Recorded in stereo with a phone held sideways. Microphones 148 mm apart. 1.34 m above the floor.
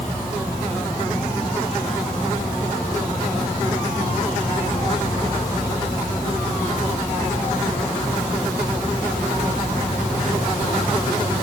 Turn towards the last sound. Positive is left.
turn(degrees=-5)  # may be behind; listen again after turning